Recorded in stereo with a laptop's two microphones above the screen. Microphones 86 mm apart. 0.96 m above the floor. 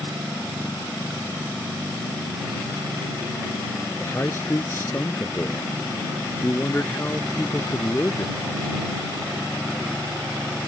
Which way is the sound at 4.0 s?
30° left (ahead or behind).